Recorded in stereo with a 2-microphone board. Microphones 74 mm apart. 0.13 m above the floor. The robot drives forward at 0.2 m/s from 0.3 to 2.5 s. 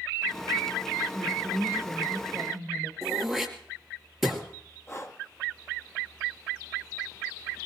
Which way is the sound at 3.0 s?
Centre (ahead or behind).